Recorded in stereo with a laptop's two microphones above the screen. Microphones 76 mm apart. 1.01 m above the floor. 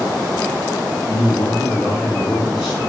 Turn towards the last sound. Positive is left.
turn(degrees=-25)  # may be behind; listen again after turning